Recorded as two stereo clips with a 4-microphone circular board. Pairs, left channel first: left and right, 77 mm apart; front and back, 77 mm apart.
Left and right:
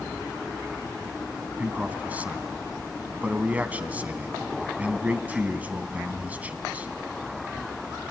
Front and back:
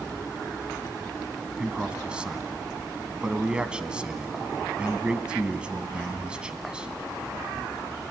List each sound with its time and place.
1.6 s a man speaking: 125° right, 1.1 m